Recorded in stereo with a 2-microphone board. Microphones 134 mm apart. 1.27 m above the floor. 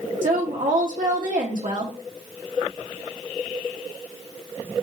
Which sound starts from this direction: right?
A woman speaking, at 0.2 s.